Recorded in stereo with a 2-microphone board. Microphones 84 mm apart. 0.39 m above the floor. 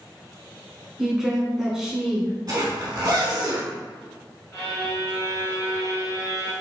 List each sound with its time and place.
1.0 s a woman speaking: 5° right (ahead or behind), 1.0 m
2.5 s a zipper: 55° right (ahead or behind), 1.4 m
4.5 s a violin: 40° left (ahead or behind), 1.8 m